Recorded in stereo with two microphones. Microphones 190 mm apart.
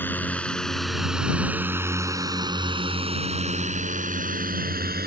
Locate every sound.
0.0 s a drone: 10° left (ahead or behind); by 5.1 s 55° right (ahead or behind)